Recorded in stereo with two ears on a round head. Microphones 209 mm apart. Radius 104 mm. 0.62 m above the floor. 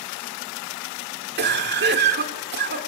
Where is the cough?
45° right (ahead or behind), 2 m.